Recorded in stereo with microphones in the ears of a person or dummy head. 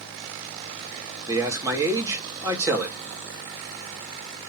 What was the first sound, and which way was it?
A man speaking, 15° right (ahead or behind).